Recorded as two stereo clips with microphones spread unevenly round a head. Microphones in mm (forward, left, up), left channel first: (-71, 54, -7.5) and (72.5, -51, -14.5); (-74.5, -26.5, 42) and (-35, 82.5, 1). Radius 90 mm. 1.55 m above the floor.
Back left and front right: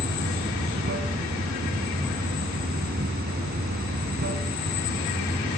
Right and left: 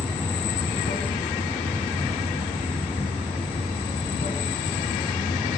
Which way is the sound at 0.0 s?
70° right.